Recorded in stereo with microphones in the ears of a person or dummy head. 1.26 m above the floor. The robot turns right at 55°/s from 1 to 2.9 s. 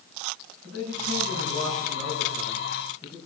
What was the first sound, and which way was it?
A man speaking, 90° right.